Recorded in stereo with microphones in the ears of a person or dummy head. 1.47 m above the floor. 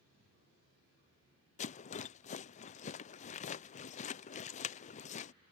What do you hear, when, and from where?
1.6 s a rattle: 35° left (ahead or behind)